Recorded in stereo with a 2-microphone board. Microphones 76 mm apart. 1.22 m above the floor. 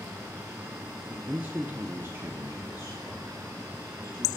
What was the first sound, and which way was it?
A man speaking, 15° right (ahead or behind).